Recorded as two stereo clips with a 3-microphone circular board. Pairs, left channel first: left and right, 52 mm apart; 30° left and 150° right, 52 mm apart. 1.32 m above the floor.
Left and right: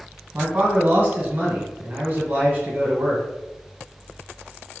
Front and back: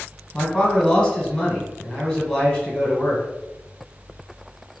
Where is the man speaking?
30° right, 1.3 m.